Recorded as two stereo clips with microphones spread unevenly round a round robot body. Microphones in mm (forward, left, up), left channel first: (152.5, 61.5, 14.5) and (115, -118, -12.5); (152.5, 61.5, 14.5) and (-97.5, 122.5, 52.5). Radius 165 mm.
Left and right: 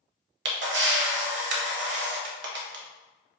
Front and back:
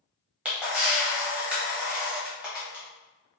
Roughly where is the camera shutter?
Right.